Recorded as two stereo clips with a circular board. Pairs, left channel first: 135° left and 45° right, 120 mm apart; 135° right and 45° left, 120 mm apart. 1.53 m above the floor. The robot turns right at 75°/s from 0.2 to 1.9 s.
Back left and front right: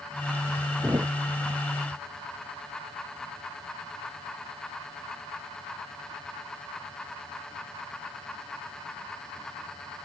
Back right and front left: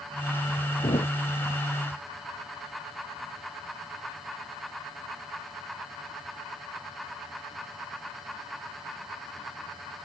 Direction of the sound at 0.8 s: 110° right.